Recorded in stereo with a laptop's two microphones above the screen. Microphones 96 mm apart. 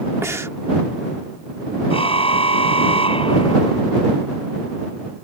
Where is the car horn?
80° left.